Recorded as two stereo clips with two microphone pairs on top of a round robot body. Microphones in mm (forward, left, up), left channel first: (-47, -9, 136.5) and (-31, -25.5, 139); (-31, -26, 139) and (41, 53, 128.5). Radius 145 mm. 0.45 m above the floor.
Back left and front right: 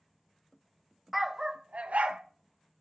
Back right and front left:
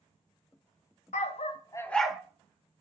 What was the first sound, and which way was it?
A dog barking, 125° right.